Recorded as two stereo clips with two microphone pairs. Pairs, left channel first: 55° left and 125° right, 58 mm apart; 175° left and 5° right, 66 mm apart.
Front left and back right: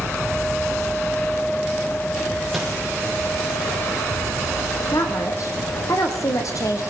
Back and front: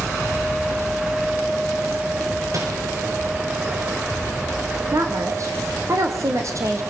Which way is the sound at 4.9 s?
30° left.